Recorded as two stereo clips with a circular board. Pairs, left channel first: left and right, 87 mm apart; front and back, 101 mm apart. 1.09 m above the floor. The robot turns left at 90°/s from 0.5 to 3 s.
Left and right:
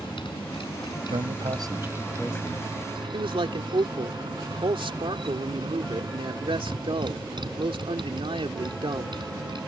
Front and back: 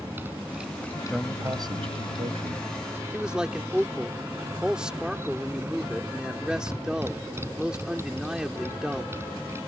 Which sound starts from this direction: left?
A motorcycle, at 0.0 s.